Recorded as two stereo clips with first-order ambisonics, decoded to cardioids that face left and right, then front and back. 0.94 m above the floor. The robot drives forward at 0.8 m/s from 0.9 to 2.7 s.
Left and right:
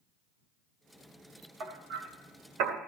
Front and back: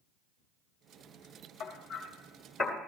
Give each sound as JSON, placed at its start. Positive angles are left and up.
{"t": 1.6, "sound": "hammering", "azimuth_deg": -50, "distance_m": 1.6}